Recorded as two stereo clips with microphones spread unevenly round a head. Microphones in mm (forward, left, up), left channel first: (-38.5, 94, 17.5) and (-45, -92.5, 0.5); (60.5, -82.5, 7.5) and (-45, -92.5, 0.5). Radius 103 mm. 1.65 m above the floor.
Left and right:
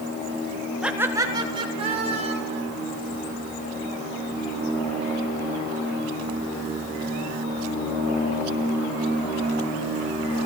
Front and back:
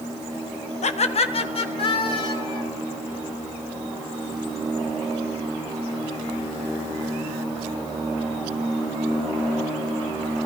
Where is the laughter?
5° right, 1.5 m; by 2.6 s 35° right, 4 m.